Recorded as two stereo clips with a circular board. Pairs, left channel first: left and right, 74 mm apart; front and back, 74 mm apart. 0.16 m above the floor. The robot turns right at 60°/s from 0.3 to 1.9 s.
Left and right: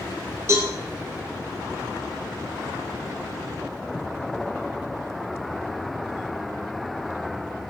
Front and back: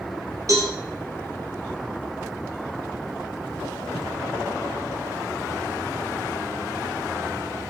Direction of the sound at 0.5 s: 140° right.